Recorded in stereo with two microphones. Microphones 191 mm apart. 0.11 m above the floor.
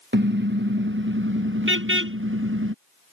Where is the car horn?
60° right (ahead or behind); by 2.7 s 85° right.